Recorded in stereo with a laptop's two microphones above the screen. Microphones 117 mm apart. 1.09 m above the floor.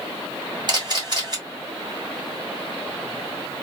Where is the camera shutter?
40° right (ahead or behind), 1.7 m.